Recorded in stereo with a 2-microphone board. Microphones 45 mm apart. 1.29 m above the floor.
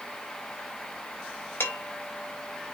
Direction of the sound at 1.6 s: 55° left (ahead or behind).